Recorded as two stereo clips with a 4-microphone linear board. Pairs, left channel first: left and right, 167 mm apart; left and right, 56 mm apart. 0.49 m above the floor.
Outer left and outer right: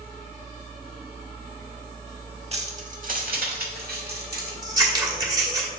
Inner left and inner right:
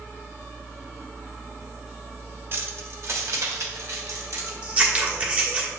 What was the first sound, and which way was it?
Keys jangling, 40° right (ahead or behind).